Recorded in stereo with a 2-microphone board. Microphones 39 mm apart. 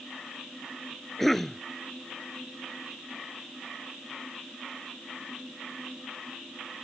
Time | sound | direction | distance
1.2 | a cough | 5° left (ahead or behind) | ?